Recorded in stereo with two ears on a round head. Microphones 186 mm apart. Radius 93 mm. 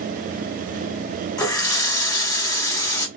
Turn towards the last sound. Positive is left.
turn(degrees=20)  # may be behind; listen again after turning